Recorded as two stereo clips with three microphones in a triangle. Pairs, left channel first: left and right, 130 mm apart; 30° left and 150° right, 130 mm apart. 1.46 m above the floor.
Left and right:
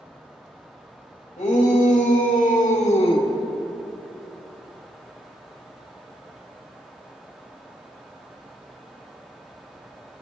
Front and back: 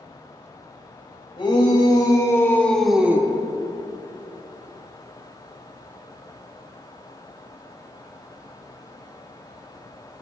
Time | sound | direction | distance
1.4 | a shout | 80° left | 3 m